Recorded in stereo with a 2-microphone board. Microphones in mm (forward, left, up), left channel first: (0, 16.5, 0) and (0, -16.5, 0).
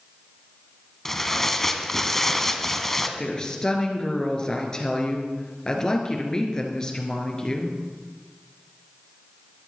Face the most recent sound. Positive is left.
turn(degrees=20)  # may be behind; listen again after turning